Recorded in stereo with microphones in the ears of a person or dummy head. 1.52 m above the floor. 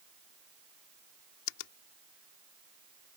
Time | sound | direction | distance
1.5 | a finger snap | 80° left | ?